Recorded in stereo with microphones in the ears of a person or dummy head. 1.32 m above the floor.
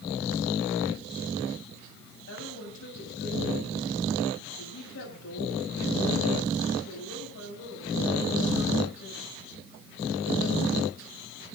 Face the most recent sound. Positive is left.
turn(degrees=75)  # may be behind; listen again after turning